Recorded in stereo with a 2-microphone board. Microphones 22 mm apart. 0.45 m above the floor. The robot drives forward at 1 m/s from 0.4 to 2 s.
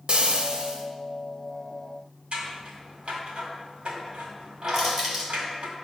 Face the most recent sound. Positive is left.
turn(degrees=-20)  # may be behind; listen again after turning